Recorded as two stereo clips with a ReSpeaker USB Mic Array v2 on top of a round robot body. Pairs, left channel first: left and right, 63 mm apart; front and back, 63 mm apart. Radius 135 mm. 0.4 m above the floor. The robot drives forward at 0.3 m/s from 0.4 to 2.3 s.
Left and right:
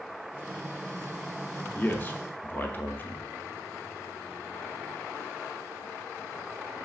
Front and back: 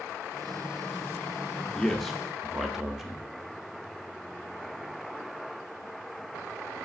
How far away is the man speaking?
About 0.8 m.